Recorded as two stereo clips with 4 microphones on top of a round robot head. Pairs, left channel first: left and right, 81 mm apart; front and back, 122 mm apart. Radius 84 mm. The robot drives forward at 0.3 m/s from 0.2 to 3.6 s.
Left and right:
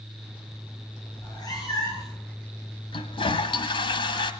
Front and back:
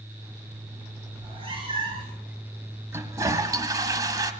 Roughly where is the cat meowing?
Behind left.